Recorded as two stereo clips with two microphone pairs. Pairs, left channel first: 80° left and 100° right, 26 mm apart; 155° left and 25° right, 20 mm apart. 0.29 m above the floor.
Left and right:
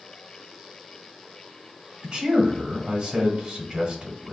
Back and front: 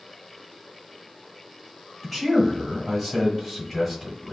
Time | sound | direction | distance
2.0 | a man speaking | 125° right | 1.2 m